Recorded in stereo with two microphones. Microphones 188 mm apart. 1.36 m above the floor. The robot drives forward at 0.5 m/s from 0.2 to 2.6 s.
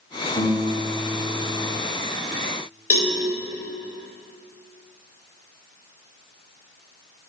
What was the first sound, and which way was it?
A guitar, 25° left (ahead or behind).